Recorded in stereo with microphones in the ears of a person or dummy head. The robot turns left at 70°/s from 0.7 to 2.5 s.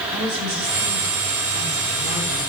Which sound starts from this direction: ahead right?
A woman speaking, at 0.1 s.